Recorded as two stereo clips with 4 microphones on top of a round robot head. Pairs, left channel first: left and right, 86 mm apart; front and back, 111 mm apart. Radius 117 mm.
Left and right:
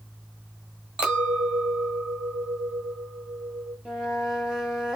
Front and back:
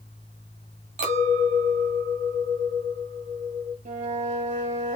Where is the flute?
175° right, 1.2 m.